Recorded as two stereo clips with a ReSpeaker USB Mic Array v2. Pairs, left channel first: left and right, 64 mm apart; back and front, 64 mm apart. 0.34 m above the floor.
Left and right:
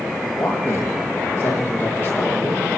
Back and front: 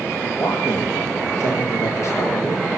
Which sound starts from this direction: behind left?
A man speaking, at 0.3 s.